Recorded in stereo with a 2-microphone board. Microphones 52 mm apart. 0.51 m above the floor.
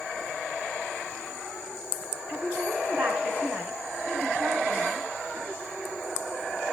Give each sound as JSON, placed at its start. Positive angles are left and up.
{"t": 2.3, "sound": "a woman speaking", "side_deg": -30, "distance_m": 3.5}